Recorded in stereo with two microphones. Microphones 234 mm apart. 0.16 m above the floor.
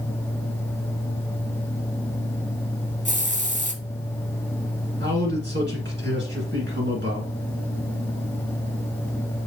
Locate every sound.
3.0 s a hiss: 30° right (ahead or behind), 0.7 m
5.0 s a man speaking: 50° right (ahead or behind), 1.8 m